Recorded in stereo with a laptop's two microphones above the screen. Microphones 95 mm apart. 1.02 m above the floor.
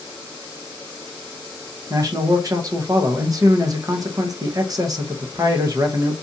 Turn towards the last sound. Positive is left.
turn(degrees=-40)  # may be behind; listen again after turning